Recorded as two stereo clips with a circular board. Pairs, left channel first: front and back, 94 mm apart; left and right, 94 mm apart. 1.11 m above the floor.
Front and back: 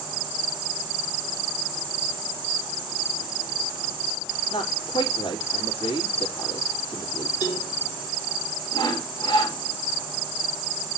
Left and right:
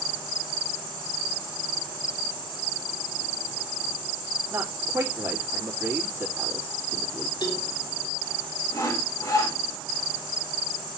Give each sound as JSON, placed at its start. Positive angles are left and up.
{"t": 4.5, "sound": "a man speaking", "azimuth_deg": -30, "distance_m": 2.5}
{"t": 7.4, "sound": "a cowbell", "azimuth_deg": 50, "distance_m": 3.0}
{"t": 8.7, "sound": "sawing", "azimuth_deg": 40, "distance_m": 3.0}